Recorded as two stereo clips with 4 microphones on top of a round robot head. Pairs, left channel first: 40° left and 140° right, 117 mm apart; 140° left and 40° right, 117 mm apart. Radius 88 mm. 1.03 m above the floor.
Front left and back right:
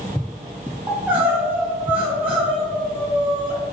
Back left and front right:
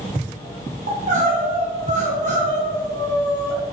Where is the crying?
65° right, 3 m.